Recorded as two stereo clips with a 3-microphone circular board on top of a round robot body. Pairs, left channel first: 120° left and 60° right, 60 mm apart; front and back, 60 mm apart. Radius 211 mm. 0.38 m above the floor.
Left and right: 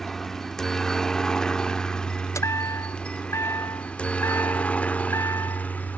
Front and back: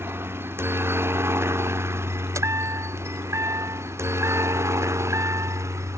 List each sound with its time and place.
0.0 s a helicopter: 155° right; by 6.0 s straight behind
2.4 s a chime: 150° left